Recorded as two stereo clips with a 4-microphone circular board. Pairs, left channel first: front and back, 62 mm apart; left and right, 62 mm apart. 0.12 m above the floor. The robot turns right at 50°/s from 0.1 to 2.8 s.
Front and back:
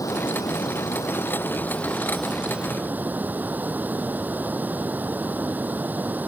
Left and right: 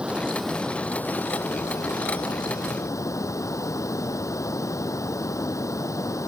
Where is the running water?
15° right; by 6.3 s 120° left.